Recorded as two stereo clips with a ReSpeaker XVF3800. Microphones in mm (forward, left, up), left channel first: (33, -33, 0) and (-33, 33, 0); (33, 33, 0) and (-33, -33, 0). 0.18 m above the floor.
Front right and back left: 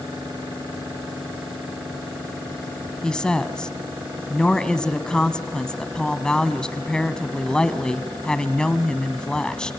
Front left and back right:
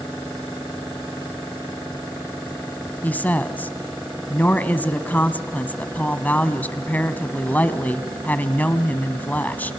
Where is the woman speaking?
20° left, 1.0 m.